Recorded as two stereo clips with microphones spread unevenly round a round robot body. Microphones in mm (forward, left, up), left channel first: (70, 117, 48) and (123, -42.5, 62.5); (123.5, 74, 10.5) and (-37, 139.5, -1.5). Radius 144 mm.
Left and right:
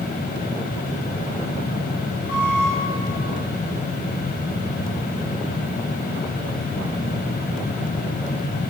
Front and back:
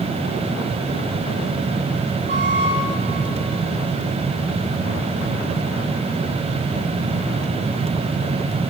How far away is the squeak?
About 5 m.